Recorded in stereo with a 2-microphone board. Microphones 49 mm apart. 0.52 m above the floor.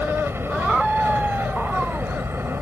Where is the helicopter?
50° right (ahead or behind).